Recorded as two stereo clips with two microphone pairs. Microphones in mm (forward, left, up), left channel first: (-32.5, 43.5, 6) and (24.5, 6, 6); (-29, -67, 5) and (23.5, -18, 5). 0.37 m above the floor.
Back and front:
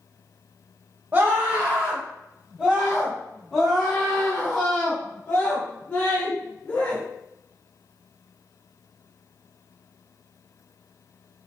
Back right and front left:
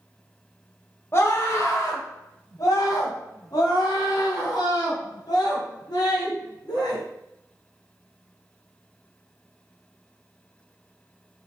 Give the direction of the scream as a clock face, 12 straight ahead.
3 o'clock.